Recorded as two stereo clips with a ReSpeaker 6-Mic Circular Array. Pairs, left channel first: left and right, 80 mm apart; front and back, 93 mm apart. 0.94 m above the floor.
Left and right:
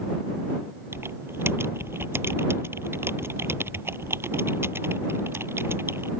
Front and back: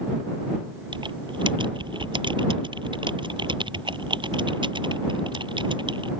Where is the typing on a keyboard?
150° right.